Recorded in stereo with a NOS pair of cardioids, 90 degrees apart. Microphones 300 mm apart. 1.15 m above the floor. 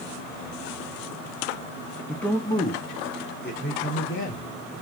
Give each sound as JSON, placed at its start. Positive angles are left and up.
{"t": 2.1, "sound": "a man speaking", "azimuth_deg": 0, "distance_m": 1.5}